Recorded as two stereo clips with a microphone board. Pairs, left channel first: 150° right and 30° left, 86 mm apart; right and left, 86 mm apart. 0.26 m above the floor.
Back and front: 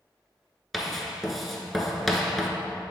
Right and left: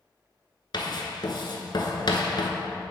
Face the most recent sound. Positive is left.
turn(degrees=-60)